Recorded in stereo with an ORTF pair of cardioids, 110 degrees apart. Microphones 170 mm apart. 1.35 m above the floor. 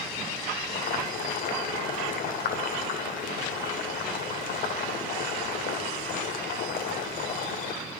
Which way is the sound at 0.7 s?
65° left.